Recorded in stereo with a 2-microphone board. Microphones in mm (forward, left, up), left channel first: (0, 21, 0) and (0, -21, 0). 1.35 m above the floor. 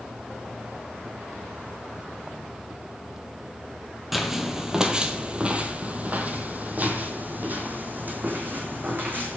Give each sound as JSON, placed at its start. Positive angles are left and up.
{"t": 4.1, "sound": "footsteps", "side_deg": -5, "distance_m": 1.4}